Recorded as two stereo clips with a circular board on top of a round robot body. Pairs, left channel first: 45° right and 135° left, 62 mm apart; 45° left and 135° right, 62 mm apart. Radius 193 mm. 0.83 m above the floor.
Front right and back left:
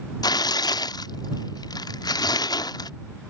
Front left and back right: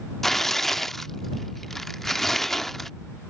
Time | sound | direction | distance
0.2 | tearing paper | 40° right | ?